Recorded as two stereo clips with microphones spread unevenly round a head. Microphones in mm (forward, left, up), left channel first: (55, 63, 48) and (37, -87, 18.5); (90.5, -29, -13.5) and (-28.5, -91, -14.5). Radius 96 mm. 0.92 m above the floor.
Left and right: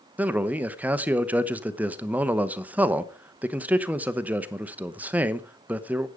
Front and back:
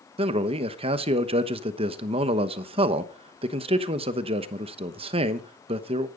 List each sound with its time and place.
0.2 s a man speaking: 155° right, 1.0 m